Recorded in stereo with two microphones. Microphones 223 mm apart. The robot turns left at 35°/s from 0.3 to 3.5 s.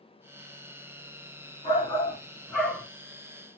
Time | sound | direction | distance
1.6 | a shout | 40° left | 2 m